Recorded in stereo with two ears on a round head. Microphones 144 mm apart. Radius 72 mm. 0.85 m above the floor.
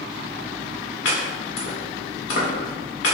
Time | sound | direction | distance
1.1 | chopping | 85° left | 1.5 m